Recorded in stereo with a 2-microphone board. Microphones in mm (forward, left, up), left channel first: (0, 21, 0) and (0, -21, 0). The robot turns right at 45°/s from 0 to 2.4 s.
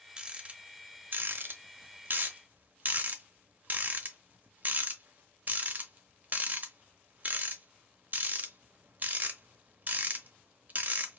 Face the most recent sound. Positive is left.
turn(degrees=-40)  # may be behind; listen again after turning